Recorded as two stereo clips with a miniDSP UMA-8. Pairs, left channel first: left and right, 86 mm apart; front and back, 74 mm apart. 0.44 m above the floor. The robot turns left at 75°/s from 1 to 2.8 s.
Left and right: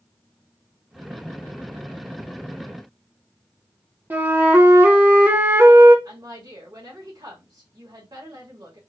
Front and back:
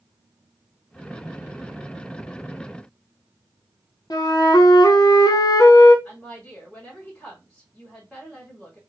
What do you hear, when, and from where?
4.1 s a flute: 25° right, 0.7 m
6.0 s a woman speaking: 75° right, 1.9 m